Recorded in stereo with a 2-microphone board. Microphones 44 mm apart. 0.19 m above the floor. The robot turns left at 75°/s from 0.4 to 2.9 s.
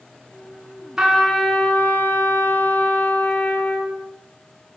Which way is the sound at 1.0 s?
160° right.